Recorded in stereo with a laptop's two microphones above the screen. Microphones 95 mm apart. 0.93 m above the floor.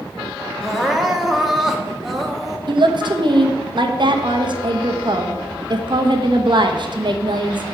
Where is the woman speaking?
55° right (ahead or behind), 1.1 m.